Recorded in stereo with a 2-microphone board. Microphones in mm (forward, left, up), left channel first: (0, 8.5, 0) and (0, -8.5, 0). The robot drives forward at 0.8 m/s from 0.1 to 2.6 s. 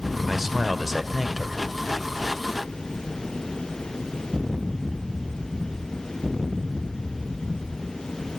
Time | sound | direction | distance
0.3 | a man speaking | 10° right (ahead or behind) | 1.3 m